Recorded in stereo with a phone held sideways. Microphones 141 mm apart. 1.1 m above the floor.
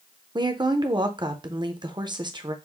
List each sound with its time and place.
0.3 s a woman speaking: 30° right (ahead or behind), 0.6 m